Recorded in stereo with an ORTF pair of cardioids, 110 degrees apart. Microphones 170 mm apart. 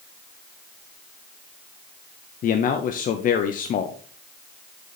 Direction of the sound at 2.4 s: 55° left.